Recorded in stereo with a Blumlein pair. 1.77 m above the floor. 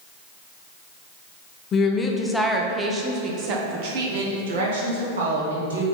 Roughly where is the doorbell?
No doorbell in this recording.